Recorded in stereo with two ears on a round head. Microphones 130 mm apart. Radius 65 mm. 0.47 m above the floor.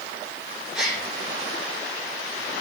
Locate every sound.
0.7 s a gasp: 5° right (ahead or behind), 9 m